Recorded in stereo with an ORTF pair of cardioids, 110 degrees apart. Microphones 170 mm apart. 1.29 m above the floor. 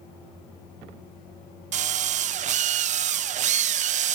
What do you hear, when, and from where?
1.7 s a drill: 50° right, 0.5 m